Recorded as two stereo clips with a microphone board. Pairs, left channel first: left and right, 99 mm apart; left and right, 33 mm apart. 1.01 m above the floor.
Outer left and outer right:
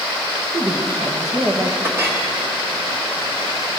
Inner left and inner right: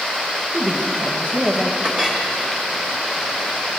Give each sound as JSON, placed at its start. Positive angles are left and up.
{"t": 0.5, "sound": "a woman speaking", "side_deg": -40, "distance_m": 1.0}
{"t": 1.8, "sound": "a clink", "side_deg": -30, "distance_m": 1.5}